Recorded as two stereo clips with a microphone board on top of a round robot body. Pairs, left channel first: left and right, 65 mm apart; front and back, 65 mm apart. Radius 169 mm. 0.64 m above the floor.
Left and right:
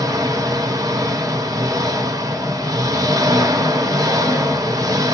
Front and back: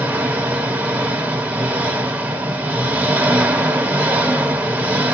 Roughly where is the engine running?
Behind right.